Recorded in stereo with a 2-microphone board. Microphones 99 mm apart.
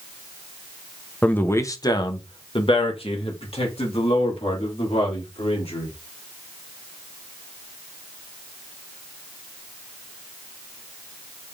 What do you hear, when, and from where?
1.2 s a man speaking: 15° left (ahead or behind), 0.8 m; by 5.9 s 80° left, 3 m